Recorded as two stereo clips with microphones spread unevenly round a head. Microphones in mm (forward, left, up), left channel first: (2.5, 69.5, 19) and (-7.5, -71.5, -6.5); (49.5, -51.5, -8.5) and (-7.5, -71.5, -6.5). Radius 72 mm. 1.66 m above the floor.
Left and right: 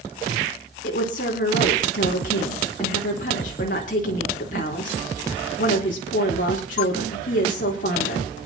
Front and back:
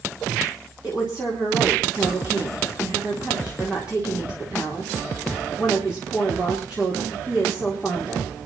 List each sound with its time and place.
0.8 s a woman speaking: 120° left, 3.5 m